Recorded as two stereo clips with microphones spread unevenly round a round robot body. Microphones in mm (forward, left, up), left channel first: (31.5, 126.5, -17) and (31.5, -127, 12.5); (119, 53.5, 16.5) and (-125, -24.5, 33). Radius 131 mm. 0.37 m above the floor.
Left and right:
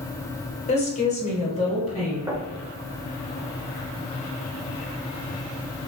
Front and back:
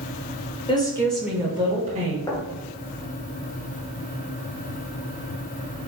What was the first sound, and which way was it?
A woman speaking, 65° left.